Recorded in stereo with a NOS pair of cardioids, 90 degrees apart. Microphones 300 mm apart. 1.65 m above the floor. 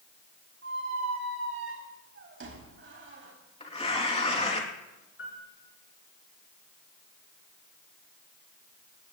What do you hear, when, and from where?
0.6 s a squeak: 40° right, 4 m
3.6 s tearing paper: 20° left, 3 m
5.2 s a piano: 40° left, 7.5 m